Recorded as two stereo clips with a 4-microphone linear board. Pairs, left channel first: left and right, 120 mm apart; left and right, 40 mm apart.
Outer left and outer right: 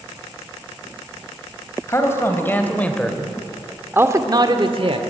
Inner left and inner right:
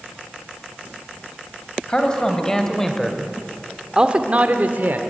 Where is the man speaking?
20° left (ahead or behind), 3.5 m; by 5.0 s 50° right (ahead or behind), 1.9 m.